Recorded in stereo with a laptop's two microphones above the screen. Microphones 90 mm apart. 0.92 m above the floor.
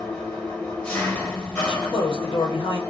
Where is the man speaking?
70° left (ahead or behind), 0.8 m.